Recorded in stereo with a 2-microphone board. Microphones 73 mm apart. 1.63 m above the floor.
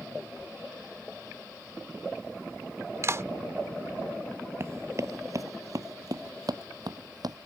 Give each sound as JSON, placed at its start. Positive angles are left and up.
{"t": 3.0, "sound": "a clap", "side_deg": -40}
{"t": 4.6, "sound": "running footsteps", "side_deg": -40}